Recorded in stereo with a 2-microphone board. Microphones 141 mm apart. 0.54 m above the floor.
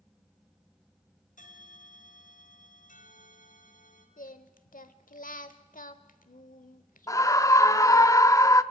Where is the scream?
25° left (ahead or behind), 0.7 m.